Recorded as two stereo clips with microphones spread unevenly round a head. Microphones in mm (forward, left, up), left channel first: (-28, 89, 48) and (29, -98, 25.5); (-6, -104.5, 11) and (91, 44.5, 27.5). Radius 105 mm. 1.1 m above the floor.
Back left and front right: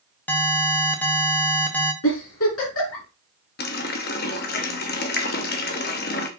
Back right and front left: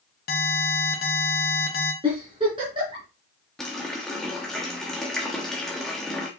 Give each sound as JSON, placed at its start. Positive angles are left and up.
{"t": 0.3, "sound": "an alarm", "azimuth_deg": -170, "distance_m": 1.4}
{"t": 2.0, "sound": "a giggle", "azimuth_deg": 125, "distance_m": 3.5}
{"t": 3.6, "sound": "a running tap", "azimuth_deg": 145, "distance_m": 0.9}